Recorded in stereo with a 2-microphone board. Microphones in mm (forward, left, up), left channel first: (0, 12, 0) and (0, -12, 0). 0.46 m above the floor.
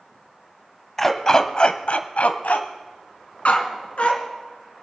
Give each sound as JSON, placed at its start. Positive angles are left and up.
{"t": 1.0, "sound": "a dog barking", "side_deg": 10, "distance_m": 0.9}